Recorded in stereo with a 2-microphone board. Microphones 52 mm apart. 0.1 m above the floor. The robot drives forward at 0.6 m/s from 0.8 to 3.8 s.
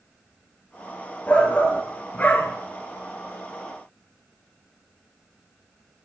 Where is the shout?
25° left (ahead or behind), 1.4 m; by 2.6 s 30° left (ahead or behind), 1.2 m.